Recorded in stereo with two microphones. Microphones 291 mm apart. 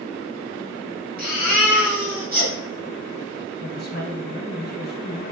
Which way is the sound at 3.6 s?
35° left (ahead or behind).